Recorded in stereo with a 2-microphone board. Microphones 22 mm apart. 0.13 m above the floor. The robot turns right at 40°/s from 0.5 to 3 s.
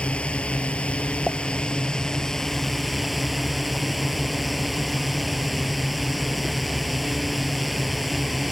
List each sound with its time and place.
0.0 s a drone: 80° left; by 8.5 s straight behind
1.3 s a pop: 10° right (ahead or behind); by 1.4 s 5° right (ahead or behind)